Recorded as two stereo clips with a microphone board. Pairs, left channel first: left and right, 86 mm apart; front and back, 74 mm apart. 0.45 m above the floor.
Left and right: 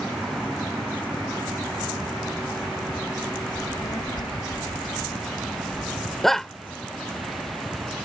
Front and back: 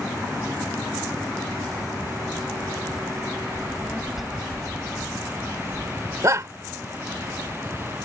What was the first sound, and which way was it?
A child speaking, 105° left.